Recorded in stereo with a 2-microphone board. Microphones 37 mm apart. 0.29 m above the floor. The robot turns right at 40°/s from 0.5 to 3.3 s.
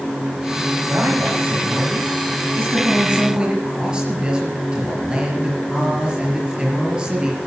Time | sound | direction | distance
0.9 | a man speaking | 120° right | 5 m